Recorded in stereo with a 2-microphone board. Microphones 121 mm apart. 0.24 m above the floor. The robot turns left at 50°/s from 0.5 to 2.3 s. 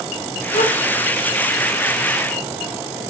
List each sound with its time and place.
0.5 s a gasp: 90° left, 8 m; by 0.8 s 80° left, 8 m